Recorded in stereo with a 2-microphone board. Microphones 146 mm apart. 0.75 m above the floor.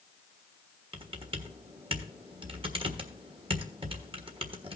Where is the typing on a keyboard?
40° right (ahead or behind), 1.3 m.